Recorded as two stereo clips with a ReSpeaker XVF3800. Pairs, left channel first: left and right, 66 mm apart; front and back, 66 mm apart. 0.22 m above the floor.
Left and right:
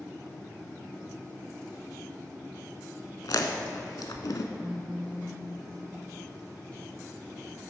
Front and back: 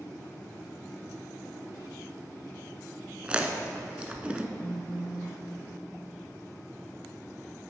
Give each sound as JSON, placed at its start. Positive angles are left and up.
{"t": 3.2, "sound": "chewing", "azimuth_deg": 110, "distance_m": 0.5}
{"t": 4.6, "sound": "a phone buzzing", "azimuth_deg": -5, "distance_m": 1.3}